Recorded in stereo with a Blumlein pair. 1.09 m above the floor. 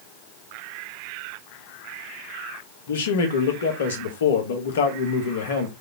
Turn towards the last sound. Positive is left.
turn(degrees=60)